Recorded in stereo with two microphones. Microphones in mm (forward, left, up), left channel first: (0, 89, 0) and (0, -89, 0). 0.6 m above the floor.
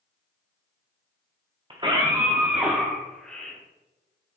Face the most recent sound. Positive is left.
turn(degrees=10)  # may be behind; listen again after turning